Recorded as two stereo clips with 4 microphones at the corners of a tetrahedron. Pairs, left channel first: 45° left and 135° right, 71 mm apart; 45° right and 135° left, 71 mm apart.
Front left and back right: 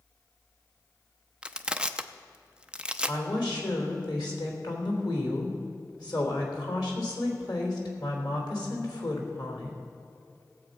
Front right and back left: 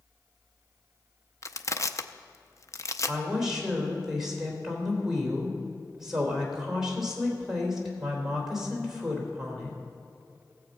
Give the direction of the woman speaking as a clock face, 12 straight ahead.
10 o'clock.